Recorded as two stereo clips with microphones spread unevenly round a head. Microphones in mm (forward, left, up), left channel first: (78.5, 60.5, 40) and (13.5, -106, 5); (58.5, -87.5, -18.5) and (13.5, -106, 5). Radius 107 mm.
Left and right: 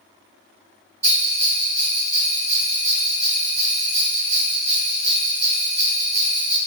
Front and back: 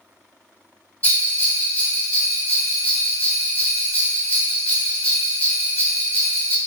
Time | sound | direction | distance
1.0 | a bell | 55° right | 1.1 m